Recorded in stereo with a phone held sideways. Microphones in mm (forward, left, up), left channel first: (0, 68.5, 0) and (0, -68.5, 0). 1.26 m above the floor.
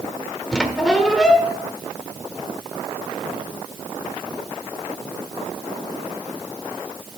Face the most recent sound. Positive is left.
turn(degrees=5)  # may be behind; listen again after turning